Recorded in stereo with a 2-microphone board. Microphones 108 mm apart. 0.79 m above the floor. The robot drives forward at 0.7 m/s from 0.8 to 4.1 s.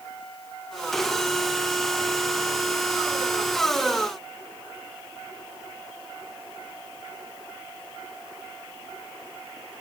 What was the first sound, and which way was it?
Only background noise.